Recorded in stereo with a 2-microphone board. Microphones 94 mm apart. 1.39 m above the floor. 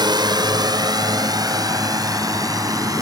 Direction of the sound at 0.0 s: 55° right (ahead or behind).